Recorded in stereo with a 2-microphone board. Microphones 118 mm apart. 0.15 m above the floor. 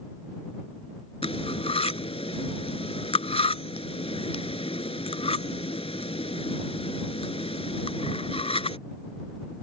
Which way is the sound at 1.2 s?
55° left (ahead or behind).